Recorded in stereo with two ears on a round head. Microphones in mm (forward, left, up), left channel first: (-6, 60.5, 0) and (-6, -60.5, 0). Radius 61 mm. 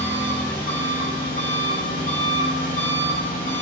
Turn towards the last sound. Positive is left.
turn(degrees=65)  # may be behind; listen again after turning